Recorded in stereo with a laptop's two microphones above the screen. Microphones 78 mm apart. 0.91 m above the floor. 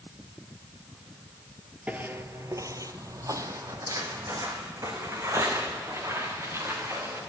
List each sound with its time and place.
1.9 s footsteps: 20° right (ahead or behind), 1.1 m; by 7.2 s 35° right (ahead or behind), 6.5 m